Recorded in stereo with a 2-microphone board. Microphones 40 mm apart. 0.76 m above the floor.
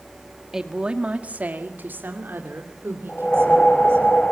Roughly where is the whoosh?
Left.